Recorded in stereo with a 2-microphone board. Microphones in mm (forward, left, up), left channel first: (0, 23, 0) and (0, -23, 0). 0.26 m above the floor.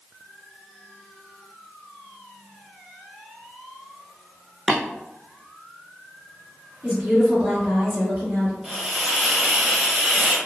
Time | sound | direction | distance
4.7 | tapping | 10° left (ahead or behind) | 0.6 m
6.8 | a woman speaking | 40° right (ahead or behind) | 1.7 m
8.6 | a hiss | 10° right (ahead or behind) | 0.7 m